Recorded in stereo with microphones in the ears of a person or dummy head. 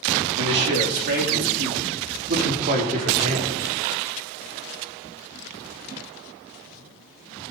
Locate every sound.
0.4 s a man speaking: 65° right (ahead or behind), 3 m; by 3.5 s 40° right (ahead or behind), 4 m